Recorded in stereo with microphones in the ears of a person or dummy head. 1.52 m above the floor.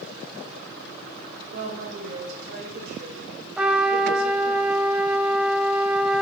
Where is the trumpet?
5° right (ahead or behind), 2.5 m.